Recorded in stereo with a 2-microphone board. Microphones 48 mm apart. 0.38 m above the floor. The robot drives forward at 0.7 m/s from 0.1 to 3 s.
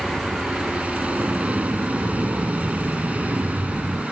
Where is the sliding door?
45° right (ahead or behind); by 4.0 s 55° right (ahead or behind).